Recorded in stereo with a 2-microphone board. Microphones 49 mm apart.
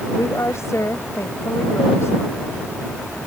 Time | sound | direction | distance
0.2 | a woman speaking | 75° left (ahead or behind) | ?